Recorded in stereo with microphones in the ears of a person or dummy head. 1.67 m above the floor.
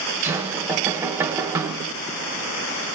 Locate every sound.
0.2 s knocking: 15° right (ahead or behind), 1.2 m